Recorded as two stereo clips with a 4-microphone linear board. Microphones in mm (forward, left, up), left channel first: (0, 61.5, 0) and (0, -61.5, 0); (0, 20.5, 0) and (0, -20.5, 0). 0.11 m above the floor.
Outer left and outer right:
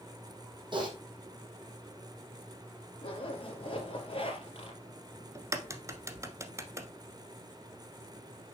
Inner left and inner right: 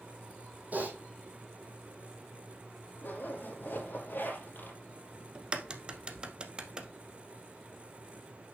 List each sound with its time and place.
0.7 s typing on a keyboard: 40° right (ahead or behind), 2.5 m
3.0 s a zipper: 45° left (ahead or behind), 2.5 m
5.3 s a crack: 25° right (ahead or behind), 1.0 m